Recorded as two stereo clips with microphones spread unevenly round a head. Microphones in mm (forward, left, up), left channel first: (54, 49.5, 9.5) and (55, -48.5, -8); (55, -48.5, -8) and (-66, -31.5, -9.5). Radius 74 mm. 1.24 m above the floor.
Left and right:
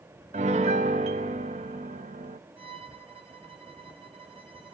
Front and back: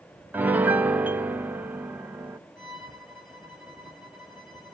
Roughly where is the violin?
Ahead right.